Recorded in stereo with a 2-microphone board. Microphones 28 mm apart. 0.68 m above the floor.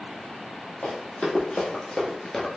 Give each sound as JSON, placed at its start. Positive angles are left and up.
{"t": 0.8, "sound": "running footsteps", "side_deg": 65, "distance_m": 1.6}